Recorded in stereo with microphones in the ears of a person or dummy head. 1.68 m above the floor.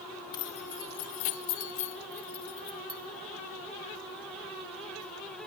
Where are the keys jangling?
20° left (ahead or behind), 1.0 m; by 3.0 s 30° left (ahead or behind), 2 m.